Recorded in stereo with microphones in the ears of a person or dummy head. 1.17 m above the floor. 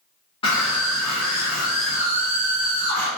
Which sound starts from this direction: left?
A scream, at 0.4 s.